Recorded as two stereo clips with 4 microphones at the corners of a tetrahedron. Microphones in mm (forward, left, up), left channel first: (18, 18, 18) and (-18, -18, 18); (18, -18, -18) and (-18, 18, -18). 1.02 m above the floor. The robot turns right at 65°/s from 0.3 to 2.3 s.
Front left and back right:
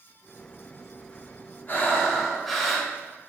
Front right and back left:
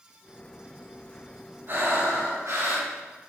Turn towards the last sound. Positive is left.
turn(degrees=135)